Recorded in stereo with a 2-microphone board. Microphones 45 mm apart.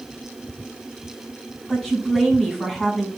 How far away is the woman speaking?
About 6 m.